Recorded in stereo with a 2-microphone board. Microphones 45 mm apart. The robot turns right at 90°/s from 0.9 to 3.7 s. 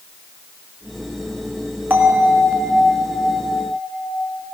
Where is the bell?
135° right, 1.9 m; by 4.4 s 30° left, 1.9 m.